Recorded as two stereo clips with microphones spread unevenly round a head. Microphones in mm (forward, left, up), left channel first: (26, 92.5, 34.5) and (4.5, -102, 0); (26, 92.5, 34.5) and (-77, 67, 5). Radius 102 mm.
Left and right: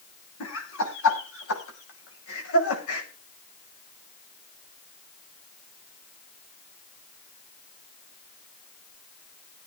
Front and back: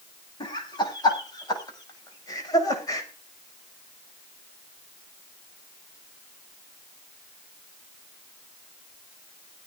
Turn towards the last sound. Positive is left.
turn(degrees=70)